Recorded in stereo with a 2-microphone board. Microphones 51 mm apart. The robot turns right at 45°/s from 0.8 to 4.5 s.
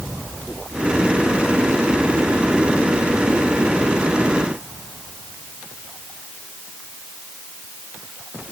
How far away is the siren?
No siren in this recording.